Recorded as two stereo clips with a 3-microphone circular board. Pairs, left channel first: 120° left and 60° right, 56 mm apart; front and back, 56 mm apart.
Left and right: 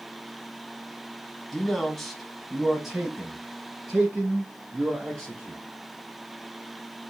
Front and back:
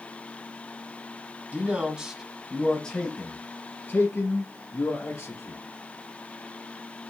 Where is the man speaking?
165° right, 1.1 m; by 5.6 s 10° left, 2.0 m.